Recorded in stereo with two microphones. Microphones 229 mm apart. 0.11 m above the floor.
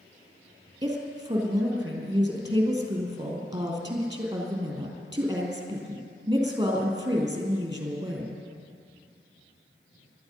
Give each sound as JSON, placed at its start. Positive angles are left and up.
{"t": 0.8, "sound": "a woman speaking", "side_deg": -15, "distance_m": 3.0}